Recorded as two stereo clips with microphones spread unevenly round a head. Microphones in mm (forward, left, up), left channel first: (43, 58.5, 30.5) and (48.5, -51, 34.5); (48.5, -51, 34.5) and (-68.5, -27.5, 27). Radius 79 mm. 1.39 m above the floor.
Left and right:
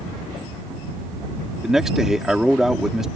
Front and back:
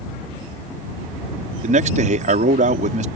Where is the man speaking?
175° right.